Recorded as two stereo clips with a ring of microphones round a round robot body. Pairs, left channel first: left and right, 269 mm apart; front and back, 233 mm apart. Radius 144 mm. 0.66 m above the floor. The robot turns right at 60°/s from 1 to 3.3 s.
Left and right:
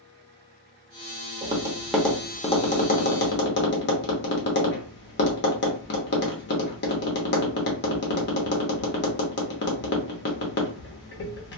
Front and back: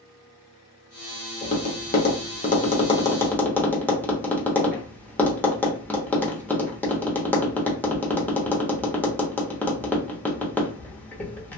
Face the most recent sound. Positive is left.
turn(degrees=80)